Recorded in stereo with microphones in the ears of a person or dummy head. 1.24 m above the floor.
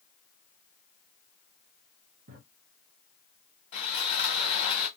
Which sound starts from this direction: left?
Sawing, at 3.7 s.